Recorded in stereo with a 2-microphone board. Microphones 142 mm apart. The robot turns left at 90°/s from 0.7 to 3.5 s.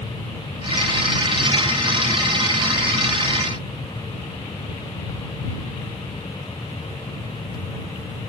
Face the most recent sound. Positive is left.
No sound to turn to.